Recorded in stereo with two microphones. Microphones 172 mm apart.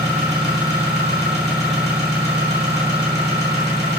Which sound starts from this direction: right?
An engine running, at 0.0 s.